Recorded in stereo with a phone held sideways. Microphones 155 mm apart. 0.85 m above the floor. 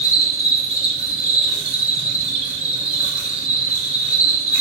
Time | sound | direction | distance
0.0 | an insect | 40° right (ahead or behind) | 0.9 m